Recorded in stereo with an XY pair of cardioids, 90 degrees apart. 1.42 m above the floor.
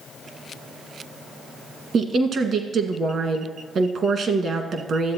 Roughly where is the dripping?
No dripping in this recording.